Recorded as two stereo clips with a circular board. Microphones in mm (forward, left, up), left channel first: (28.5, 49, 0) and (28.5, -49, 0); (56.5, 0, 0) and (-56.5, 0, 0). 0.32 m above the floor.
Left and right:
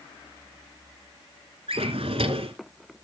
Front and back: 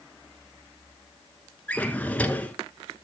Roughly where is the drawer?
Right.